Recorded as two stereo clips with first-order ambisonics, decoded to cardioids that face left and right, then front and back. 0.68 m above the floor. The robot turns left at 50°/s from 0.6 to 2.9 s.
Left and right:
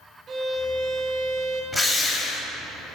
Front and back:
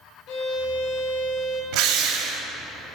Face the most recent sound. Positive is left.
turn(degrees=120)